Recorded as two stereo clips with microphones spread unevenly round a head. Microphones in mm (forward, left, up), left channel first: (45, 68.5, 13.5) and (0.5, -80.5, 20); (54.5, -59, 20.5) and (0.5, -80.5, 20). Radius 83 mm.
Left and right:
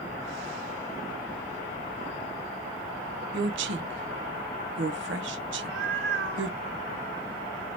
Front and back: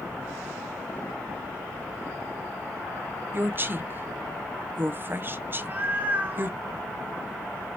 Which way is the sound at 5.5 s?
100° right.